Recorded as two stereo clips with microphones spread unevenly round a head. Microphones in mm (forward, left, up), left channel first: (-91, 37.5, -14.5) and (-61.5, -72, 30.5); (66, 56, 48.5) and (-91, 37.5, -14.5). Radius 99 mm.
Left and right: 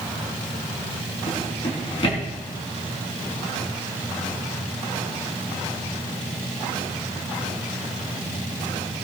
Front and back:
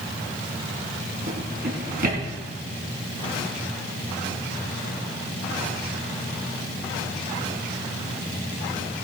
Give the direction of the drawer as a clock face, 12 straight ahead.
7 o'clock.